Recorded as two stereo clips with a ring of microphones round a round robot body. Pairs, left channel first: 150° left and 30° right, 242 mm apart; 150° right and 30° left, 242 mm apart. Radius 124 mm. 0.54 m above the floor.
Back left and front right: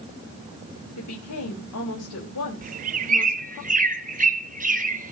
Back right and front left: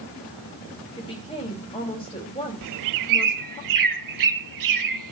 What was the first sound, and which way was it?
A woman speaking, 140° left.